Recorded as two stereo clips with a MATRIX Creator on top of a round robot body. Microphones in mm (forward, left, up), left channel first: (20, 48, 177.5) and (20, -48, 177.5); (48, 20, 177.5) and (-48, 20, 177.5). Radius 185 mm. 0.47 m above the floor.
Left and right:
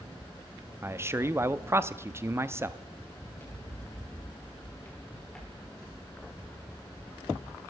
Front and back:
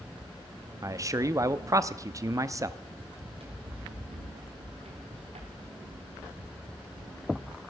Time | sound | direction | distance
0.8 | a man speaking | 140° right | 0.9 m
3.2 | running footsteps | 155° left | 6 m